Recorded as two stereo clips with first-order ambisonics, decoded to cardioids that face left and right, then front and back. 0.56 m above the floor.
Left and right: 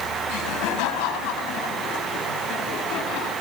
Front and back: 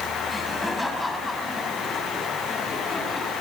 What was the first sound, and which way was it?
Laughter, 90° left.